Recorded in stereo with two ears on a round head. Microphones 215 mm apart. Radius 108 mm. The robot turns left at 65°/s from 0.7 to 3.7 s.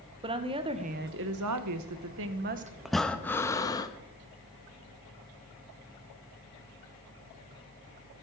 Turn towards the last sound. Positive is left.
turn(degrees=15)  # may be behind; listen again after turning